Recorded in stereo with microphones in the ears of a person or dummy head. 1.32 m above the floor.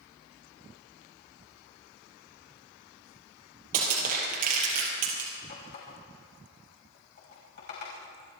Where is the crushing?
50° right (ahead or behind), 5.5 m.